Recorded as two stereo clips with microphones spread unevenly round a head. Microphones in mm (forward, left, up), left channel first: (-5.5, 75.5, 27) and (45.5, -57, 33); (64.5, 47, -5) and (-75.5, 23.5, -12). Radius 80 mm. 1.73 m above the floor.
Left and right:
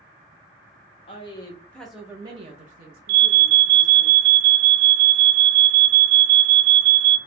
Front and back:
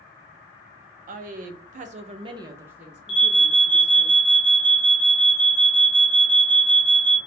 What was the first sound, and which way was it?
A woman speaking, 170° left.